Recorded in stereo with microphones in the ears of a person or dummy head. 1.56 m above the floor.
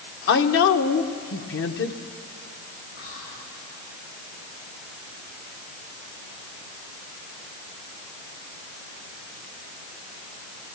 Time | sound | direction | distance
0.3 | a woman speaking | 70° left (ahead or behind) | 1.2 m
3.0 | whispering | 80° left | 9.5 m